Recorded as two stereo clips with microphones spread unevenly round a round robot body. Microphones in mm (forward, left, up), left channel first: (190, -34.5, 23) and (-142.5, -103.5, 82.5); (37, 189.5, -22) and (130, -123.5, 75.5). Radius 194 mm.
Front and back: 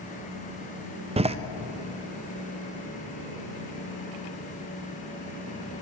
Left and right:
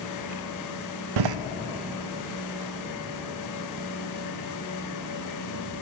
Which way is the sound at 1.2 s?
90° right.